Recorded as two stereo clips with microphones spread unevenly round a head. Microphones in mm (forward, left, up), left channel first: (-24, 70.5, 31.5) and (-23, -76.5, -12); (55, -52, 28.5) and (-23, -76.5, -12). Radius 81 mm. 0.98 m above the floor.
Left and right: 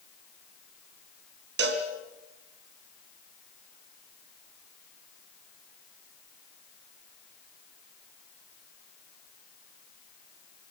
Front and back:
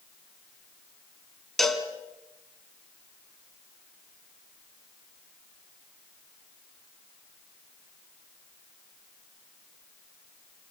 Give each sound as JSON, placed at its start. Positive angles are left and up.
{"t": 1.6, "sound": "a cowbell", "azimuth_deg": -60, "distance_m": 2.5}